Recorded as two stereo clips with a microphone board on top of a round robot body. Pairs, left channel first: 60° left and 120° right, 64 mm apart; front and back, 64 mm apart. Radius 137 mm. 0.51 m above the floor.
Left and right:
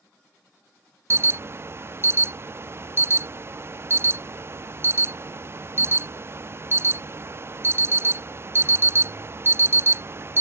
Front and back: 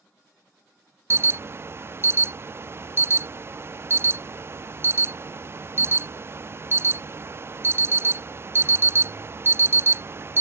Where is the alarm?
150° right.